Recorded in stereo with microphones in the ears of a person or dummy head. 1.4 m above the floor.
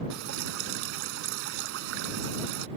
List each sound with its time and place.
0.1 s dripping: 70° right (ahead or behind)